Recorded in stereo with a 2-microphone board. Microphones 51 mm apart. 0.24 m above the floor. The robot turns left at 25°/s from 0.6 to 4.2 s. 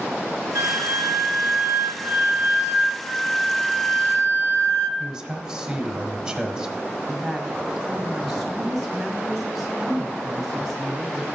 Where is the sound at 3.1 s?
10° left (ahead or behind), 0.9 m; by 4.9 s 35° left (ahead or behind), 0.9 m.